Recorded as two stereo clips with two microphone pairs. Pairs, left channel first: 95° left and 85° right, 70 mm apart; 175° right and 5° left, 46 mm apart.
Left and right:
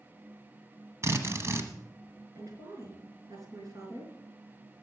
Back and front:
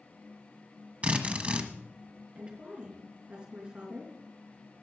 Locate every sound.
1.0 s a drill: 50° right, 1.2 m
2.4 s a woman speaking: 60° right, 4.5 m